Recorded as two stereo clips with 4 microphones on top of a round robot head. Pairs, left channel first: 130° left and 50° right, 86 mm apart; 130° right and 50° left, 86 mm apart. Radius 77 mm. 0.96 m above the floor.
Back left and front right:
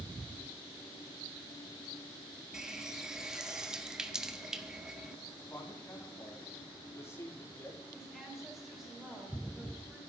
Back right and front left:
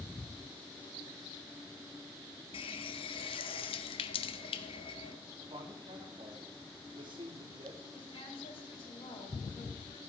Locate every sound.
2.5 s a running tap: 135° right, 1.2 m
5.4 s a man speaking: 70° left, 3 m
7.9 s a woman speaking: 140° right, 8 m